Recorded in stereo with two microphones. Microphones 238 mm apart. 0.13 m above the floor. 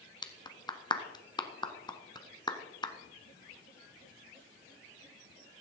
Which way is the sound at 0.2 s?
20° left (ahead or behind).